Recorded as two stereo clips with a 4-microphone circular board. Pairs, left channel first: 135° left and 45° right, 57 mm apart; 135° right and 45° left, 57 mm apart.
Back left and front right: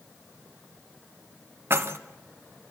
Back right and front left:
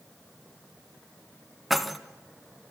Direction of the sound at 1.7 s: 45° right.